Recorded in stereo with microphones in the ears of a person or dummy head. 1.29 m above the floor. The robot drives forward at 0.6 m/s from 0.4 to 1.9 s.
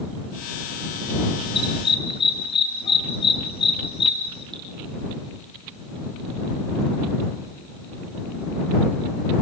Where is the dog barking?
30° left (ahead or behind), 8.5 m.